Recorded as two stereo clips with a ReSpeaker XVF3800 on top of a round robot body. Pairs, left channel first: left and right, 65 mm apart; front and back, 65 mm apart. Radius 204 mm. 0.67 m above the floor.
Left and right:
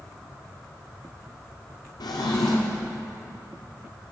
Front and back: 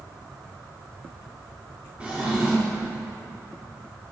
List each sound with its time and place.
2.0 s a drawer: 105° left, 0.6 m